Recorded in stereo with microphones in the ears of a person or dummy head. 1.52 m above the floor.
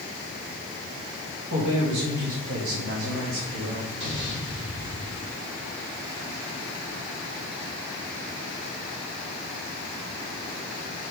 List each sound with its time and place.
1.5 s a woman speaking: 50° right (ahead or behind), 2 m; by 3.9 s 55° right (ahead or behind), 2.5 m
4.0 s an explosion: 65° right (ahead or behind), 4 m